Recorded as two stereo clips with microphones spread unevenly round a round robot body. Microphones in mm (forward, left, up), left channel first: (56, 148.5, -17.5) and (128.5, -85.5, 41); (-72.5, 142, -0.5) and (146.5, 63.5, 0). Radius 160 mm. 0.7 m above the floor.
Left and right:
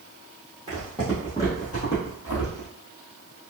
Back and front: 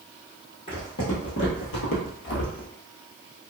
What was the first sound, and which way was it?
Footsteps, 145° right.